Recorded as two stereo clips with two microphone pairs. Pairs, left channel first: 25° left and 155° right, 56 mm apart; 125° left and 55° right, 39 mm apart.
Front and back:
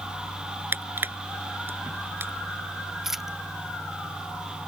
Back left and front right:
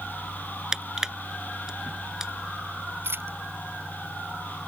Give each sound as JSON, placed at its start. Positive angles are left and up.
{"t": 0.7, "sound": "crushing", "azimuth_deg": -125}
{"t": 3.0, "sound": "a dropped coin", "azimuth_deg": -70}